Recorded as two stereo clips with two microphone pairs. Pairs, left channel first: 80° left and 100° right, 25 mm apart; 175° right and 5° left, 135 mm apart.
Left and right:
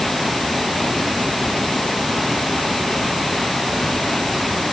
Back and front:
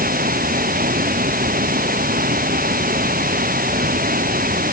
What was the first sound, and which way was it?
Running water, straight ahead.